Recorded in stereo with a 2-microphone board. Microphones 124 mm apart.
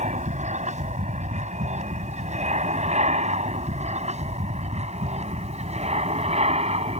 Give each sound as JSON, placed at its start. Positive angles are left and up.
{"t": 0.0, "sound": "an aircraft", "side_deg": -75}